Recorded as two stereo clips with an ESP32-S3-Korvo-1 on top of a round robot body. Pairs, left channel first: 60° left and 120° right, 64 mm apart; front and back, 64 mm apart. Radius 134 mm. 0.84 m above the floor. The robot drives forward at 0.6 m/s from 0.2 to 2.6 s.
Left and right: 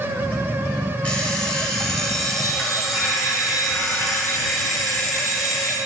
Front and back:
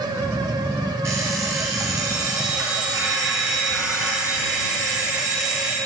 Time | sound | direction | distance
1.0 | an alarm clock | 130° left | 1.6 m